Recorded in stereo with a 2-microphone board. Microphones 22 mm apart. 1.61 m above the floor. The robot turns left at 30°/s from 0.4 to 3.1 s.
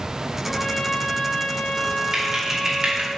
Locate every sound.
0.5 s a trumpet: 130° left, 1.2 m; by 3.1 s 50° left, 1.2 m
2.1 s typing on a keyboard: 25° right (ahead or behind), 2.5 m; by 3.1 s 50° right (ahead or behind), 2.5 m